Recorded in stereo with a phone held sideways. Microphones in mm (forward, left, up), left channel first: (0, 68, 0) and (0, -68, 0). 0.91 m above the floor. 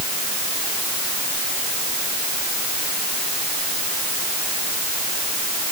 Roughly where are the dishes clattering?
No dishes clattering in this recording.